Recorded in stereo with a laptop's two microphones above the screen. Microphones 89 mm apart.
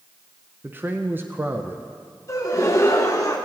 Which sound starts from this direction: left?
A gasp, at 2.3 s.